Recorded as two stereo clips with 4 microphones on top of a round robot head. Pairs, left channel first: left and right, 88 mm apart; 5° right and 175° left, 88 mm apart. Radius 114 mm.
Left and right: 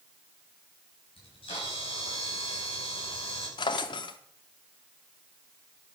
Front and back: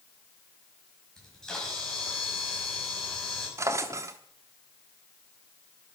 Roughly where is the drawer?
Behind left.